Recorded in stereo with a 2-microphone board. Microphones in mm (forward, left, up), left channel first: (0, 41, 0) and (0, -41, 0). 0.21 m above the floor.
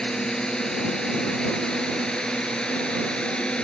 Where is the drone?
10° left (ahead or behind); by 3.6 s 15° left (ahead or behind).